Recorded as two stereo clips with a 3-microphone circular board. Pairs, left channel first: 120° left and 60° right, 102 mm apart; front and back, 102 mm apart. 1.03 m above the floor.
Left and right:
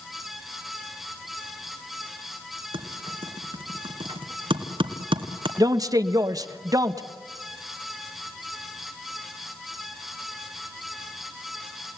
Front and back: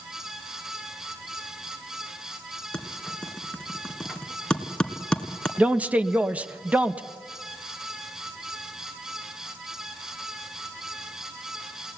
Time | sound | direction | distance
2.7 | typing on a keyboard | 80° right | 2 m
5.6 | a man speaking | 105° right | 1.3 m